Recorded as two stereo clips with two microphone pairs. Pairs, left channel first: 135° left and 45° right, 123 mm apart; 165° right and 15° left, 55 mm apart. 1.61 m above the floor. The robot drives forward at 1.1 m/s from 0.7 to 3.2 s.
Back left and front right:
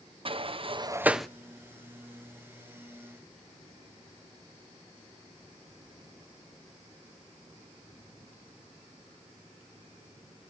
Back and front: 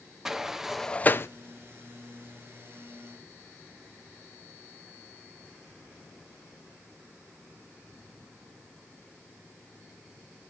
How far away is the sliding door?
About 0.6 m.